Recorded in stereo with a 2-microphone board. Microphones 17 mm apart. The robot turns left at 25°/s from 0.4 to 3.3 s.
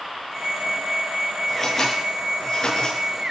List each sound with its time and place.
1.5 s scissors: 5° left (ahead or behind), 6 m; by 3.0 s 40° left (ahead or behind), 6 m